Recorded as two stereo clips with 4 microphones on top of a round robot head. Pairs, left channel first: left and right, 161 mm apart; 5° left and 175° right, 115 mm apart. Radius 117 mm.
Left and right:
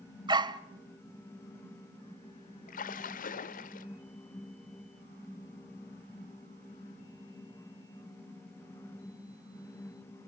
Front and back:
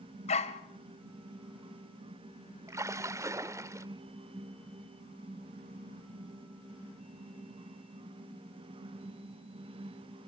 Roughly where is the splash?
Behind left.